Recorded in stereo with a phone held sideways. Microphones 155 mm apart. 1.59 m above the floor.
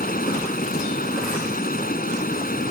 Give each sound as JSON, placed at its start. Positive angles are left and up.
{"t": 0.0, "sound": "running water", "side_deg": 70}